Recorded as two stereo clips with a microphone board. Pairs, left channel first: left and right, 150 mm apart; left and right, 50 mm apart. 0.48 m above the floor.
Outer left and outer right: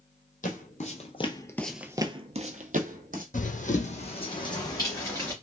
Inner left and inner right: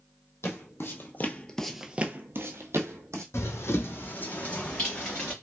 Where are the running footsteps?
60° left (ahead or behind), 0.9 m; by 5.3 s 15° left (ahead or behind), 1.8 m.